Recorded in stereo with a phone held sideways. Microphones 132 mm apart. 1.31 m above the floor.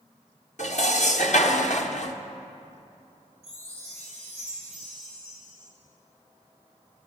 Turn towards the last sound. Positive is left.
turn(degrees=-65)  # may be behind; listen again after turning